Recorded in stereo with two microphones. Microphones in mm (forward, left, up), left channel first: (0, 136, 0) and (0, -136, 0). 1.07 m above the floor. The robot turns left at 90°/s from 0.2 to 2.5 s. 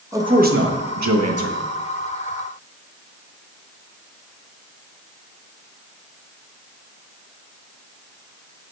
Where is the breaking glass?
No breaking glass in this recording.